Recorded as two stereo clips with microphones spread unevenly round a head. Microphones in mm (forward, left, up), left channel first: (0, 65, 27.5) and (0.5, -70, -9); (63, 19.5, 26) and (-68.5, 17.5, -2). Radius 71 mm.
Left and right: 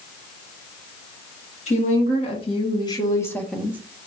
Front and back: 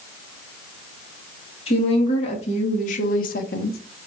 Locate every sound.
1.7 s a woman speaking: 45° left, 2.5 m; by 3.8 s 10° right, 0.8 m